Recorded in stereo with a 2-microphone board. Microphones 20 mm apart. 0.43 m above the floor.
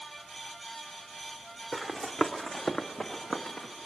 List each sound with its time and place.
1.7 s running footsteps: 25° left (ahead or behind), 1.3 m; by 3.7 s 75° left (ahead or behind), 1.8 m